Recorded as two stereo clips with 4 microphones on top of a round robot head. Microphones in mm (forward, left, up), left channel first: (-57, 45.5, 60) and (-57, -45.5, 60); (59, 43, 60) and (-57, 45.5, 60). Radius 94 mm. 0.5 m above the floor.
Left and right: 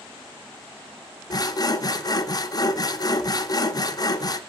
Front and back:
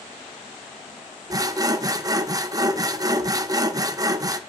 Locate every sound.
1.3 s sawing: 125° left, 0.9 m